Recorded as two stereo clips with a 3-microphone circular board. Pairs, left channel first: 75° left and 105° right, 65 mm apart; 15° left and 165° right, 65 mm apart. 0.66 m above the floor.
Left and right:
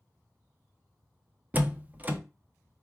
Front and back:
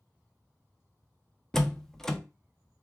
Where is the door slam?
60° right, 0.6 m.